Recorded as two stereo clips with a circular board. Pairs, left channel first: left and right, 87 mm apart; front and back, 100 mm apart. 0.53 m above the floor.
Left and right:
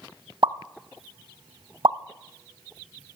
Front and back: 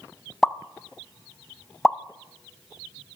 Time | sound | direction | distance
0.4 | a pop | 85° right | 0.6 m